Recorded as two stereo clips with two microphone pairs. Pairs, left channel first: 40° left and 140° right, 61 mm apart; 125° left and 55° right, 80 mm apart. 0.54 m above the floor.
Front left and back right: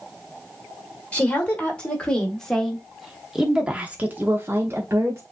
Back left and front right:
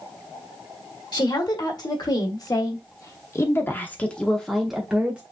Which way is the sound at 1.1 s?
105° left.